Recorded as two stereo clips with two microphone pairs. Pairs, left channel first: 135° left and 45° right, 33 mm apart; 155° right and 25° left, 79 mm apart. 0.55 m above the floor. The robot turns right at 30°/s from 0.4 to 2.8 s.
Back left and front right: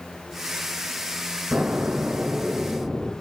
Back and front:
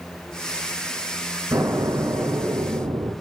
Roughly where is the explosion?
Ahead.